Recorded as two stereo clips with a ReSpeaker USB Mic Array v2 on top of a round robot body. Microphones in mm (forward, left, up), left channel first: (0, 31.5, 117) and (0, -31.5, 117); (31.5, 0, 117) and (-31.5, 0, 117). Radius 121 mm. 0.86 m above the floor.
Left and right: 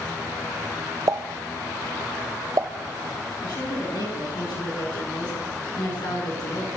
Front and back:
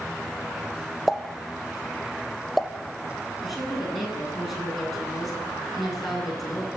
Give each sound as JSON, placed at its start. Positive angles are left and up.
{"t": 1.1, "sound": "a pop", "azimuth_deg": -90, "distance_m": 1.5}
{"t": 3.4, "sound": "a woman speaking", "azimuth_deg": 90, "distance_m": 9.5}